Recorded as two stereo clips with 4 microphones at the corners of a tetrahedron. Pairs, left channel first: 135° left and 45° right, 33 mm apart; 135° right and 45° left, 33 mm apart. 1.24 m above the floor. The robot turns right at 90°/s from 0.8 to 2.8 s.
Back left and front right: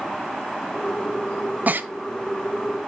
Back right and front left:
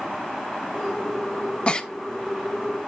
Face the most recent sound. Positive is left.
turn(degrees=25)